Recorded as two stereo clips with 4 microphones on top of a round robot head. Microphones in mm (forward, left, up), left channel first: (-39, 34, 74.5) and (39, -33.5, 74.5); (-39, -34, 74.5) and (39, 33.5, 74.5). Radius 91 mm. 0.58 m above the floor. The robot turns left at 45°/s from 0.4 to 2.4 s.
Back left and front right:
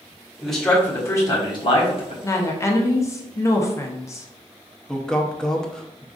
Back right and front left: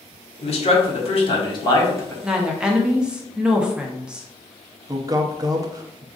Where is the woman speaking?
120° left, 0.7 m; by 4.3 s 115° left, 0.7 m.